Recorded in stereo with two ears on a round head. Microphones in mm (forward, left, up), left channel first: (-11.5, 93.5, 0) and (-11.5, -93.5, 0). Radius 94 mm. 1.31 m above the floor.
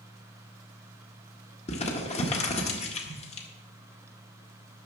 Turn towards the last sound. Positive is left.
turn(degrees=30)  # may be behind; listen again after turning